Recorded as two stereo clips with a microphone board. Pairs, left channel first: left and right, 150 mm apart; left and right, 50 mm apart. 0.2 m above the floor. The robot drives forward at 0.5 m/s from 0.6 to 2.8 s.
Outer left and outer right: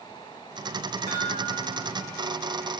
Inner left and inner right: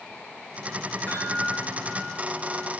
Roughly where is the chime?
Left.